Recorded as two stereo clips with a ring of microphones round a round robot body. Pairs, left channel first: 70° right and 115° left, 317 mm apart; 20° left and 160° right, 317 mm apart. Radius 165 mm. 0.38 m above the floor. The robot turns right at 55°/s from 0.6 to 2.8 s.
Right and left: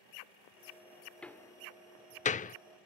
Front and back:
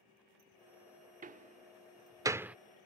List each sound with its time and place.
1.2 s a door slam: 150° right; by 2.6 s 75° right